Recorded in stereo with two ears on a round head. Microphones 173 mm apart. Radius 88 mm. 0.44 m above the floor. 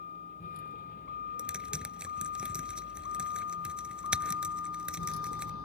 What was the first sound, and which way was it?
A vehicle, 45° left (ahead or behind).